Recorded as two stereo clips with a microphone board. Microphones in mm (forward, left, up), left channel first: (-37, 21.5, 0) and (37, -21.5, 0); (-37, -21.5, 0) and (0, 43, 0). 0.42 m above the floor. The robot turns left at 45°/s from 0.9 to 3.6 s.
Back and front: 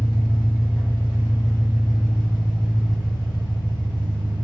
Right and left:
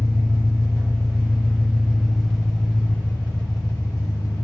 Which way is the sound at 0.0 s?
30° left.